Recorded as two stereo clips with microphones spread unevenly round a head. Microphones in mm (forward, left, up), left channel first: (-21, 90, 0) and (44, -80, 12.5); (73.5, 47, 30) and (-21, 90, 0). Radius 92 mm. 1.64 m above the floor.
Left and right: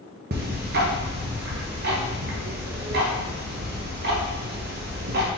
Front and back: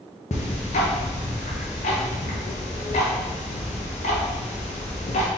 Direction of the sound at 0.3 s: 35° right.